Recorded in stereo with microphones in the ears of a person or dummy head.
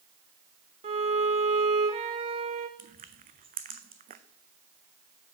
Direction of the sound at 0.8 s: 25° right (ahead or behind).